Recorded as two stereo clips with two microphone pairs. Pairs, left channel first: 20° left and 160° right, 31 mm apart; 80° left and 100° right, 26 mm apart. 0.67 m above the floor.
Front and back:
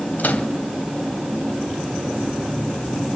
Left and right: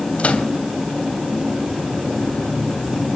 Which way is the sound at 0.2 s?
40° left.